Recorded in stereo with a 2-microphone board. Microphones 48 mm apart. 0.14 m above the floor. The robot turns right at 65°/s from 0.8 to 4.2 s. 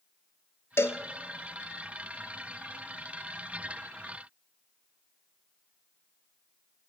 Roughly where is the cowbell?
Left.